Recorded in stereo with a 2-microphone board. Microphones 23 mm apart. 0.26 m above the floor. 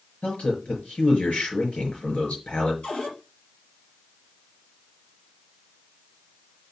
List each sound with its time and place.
0.2 s a man speaking: 75° left (ahead or behind), 5 m
2.8 s a cupboard door: 75° left (ahead or behind), 4.5 m